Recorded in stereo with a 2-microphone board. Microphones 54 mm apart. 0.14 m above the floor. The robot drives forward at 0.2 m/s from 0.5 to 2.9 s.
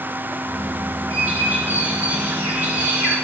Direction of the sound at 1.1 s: 35° right (ahead or behind).